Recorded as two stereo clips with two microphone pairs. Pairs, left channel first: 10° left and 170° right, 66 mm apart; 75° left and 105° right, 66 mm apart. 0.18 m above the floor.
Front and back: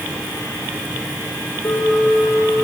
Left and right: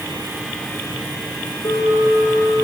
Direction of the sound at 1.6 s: 60° left.